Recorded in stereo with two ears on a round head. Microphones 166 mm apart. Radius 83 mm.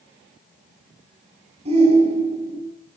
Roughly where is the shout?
Right.